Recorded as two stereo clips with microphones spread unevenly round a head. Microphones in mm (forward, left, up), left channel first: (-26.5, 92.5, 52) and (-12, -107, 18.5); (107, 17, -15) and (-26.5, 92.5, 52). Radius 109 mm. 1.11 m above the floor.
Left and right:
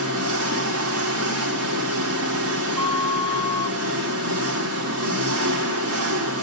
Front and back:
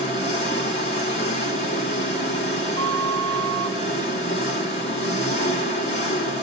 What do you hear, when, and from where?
0.0 s an engine running: 95° right, 1.7 m
2.8 s a flute: 175° right, 1.5 m